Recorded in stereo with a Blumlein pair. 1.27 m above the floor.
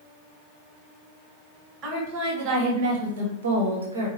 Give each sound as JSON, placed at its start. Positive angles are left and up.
{"t": 1.8, "sound": "a woman speaking", "azimuth_deg": -30, "distance_m": 1.7}